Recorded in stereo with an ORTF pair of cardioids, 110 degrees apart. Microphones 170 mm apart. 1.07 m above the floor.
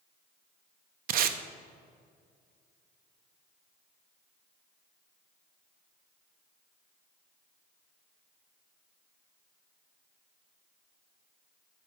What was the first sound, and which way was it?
Tape being pulled, 60° right.